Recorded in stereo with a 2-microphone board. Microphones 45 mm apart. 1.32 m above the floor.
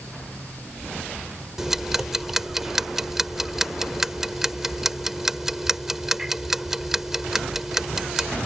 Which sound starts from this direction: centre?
Ticking, at 1.6 s.